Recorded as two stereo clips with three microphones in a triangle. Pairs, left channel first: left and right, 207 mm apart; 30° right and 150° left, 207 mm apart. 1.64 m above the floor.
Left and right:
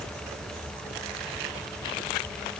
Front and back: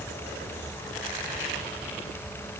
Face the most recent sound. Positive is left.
No sound to turn to.